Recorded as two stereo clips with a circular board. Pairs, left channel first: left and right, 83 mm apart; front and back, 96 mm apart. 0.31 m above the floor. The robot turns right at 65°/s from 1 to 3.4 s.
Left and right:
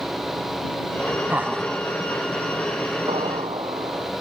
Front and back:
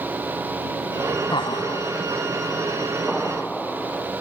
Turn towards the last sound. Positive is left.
turn(degrees=-80)